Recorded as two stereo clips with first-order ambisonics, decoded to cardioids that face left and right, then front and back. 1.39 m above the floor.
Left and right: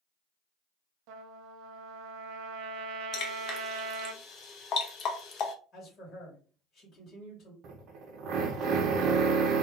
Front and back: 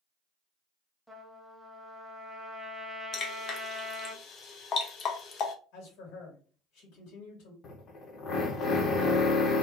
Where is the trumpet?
85° right, 0.7 m.